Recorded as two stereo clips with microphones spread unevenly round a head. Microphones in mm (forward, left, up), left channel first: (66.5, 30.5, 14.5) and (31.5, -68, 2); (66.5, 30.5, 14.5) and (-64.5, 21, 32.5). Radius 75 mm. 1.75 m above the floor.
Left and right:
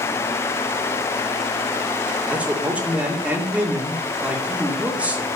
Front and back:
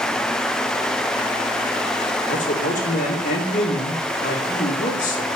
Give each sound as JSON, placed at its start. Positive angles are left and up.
{"t": 2.3, "sound": "a man speaking", "azimuth_deg": -30, "distance_m": 3.0}